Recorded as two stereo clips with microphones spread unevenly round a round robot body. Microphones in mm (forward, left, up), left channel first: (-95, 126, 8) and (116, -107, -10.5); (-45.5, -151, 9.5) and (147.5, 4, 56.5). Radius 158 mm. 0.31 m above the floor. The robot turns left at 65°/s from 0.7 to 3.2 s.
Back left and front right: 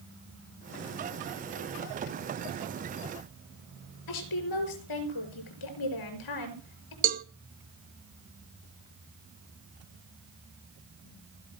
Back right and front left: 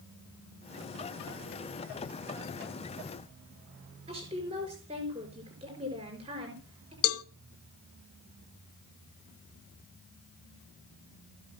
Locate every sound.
4.1 s a woman speaking: 110° left, 6 m
7.0 s a cowbell: 115° right, 0.9 m